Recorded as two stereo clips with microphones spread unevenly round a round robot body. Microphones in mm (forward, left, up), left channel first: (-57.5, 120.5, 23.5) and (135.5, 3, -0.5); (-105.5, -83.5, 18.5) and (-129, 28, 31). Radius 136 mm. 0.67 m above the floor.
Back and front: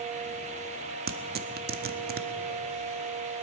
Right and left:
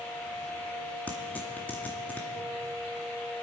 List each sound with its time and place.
1.1 s tearing paper: 5° right, 0.8 m